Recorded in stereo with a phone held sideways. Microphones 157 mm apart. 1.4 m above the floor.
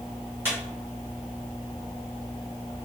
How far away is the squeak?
About 1.5 m.